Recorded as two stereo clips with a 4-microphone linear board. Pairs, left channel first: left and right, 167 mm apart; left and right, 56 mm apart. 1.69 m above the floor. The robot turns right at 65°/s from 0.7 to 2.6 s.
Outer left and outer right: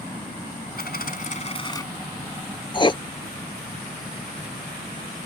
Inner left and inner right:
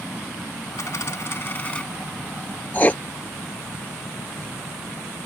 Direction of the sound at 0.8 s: 90° left.